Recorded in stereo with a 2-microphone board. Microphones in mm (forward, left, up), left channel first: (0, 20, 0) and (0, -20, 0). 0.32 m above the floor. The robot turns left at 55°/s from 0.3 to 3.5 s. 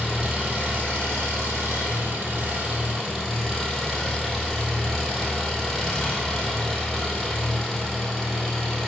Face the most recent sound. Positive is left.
turn(degrees=175)